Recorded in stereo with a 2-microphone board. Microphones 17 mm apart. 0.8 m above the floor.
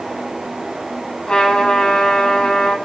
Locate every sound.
1.3 s a trumpet: 55° left (ahead or behind), 8.5 m